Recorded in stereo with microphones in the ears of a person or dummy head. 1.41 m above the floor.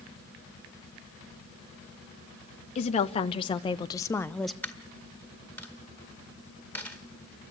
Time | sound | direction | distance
2.8 | a woman speaking | 40° left (ahead or behind) | 1.3 m
4.6 | a dropped coin | 10° left (ahead or behind) | 2 m